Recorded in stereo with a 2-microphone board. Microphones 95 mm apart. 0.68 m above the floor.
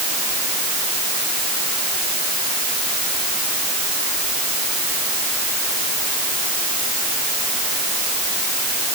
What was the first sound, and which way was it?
Only background noise.